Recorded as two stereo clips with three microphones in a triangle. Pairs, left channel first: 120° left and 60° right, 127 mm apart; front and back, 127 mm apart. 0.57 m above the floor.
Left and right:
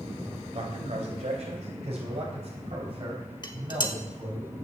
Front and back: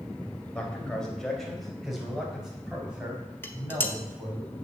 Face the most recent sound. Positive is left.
turn(degrees=70)